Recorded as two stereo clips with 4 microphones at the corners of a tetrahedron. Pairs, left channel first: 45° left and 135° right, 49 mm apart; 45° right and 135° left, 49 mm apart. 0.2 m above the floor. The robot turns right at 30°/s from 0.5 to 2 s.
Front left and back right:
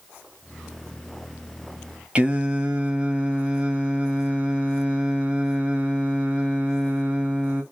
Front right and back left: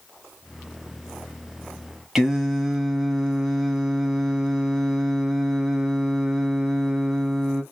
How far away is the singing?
About 1.1 m.